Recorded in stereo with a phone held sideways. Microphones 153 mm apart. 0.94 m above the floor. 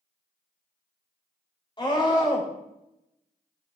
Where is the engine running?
No engine running in this recording.